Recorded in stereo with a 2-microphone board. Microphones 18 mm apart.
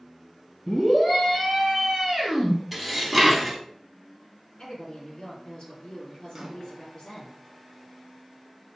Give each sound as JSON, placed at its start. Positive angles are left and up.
{"t": 0.7, "sound": "a scream", "side_deg": 25, "distance_m": 1.4}
{"t": 2.7, "sound": "dishes clattering", "side_deg": 0, "distance_m": 0.7}
{"t": 4.6, "sound": "a woman speaking", "side_deg": 40, "distance_m": 1.7}
{"t": 6.3, "sound": "a microwave", "side_deg": -25, "distance_m": 1.1}